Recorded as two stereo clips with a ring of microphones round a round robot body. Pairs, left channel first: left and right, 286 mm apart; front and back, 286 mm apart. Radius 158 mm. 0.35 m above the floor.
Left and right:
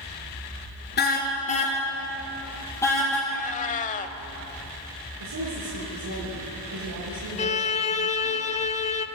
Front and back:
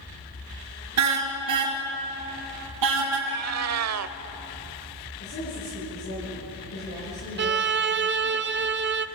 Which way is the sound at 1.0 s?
150° left.